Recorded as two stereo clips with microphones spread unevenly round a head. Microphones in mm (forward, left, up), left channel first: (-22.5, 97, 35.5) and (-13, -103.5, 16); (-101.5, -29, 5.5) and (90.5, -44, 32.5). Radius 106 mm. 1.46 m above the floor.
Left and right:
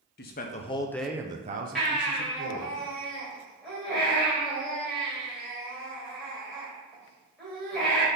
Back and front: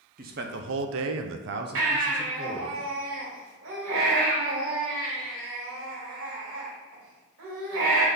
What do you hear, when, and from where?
0.2 s a man speaking: 50° left, 1.0 m; by 2.8 s 70° right, 1.5 m
1.8 s a baby crying: 5° left, 2.5 m